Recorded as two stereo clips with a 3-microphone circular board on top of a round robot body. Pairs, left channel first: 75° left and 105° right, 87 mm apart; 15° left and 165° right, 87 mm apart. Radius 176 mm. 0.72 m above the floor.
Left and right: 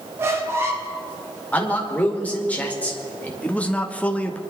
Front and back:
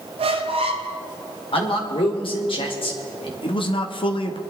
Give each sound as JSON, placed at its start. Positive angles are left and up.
{"t": 0.2, "sound": "a squeak", "azimuth_deg": -170, "distance_m": 0.7}
{"t": 1.5, "sound": "a man speaking", "azimuth_deg": 0, "distance_m": 2.5}
{"t": 3.4, "sound": "a man speaking", "azimuth_deg": 0, "distance_m": 1.4}